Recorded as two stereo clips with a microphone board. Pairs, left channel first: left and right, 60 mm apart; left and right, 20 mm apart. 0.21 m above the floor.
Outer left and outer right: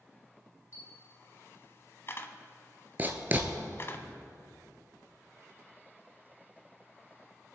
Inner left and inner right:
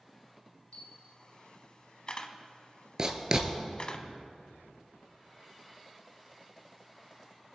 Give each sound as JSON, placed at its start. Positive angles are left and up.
{"t": 0.7, "sound": "a camera shutter", "side_deg": 45, "distance_m": 0.9}
{"t": 3.0, "sound": "writing", "side_deg": -30, "distance_m": 1.2}